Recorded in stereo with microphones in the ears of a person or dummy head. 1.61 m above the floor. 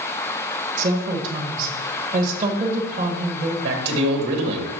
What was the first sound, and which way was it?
A woman speaking, 45° right (ahead or behind).